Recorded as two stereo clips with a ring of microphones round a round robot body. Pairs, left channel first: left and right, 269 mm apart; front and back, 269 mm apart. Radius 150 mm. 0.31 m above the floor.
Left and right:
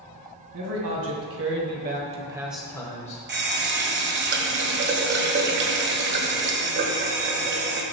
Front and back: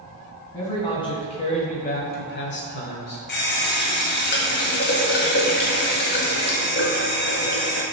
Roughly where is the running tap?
Ahead right.